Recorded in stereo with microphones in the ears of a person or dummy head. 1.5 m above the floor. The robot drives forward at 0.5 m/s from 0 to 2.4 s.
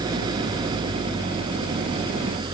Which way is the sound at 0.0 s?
25° right (ahead or behind).